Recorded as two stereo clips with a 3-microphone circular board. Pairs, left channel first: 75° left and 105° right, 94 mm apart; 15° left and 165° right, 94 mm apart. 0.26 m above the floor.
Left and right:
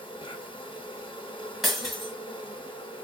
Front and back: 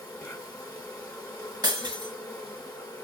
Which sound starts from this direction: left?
An insect, at 0.0 s.